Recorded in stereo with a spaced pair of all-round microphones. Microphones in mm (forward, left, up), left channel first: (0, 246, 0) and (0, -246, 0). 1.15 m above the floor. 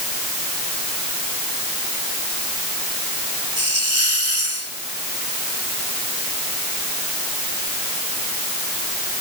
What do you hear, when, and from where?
3.6 s a hiss: 75° right (ahead or behind)